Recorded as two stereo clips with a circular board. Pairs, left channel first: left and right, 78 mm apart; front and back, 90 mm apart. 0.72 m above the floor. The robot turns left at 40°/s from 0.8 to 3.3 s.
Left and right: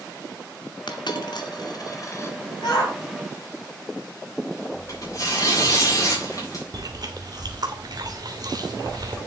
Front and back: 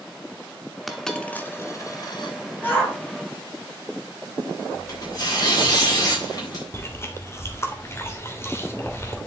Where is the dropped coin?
90° left, 1.5 m; by 2.4 s 30° left, 1.5 m.